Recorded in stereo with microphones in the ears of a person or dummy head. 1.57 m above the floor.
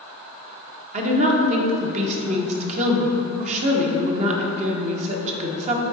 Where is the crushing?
I don't hear crushing.